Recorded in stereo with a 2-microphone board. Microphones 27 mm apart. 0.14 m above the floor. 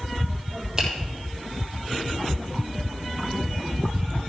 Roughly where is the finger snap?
Centre.